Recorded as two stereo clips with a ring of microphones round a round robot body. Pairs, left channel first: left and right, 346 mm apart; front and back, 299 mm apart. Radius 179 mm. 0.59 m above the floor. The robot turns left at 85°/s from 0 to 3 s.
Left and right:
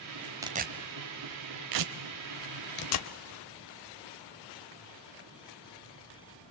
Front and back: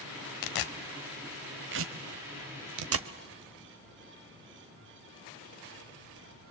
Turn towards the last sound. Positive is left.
turn(degrees=135)